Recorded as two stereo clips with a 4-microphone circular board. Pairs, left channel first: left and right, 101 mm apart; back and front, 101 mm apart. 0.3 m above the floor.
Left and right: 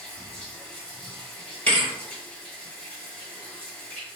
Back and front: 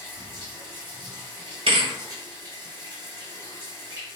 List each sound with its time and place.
0.0 s running water: 15° left, 1.2 m
1.7 s a thud: 20° left, 1.0 m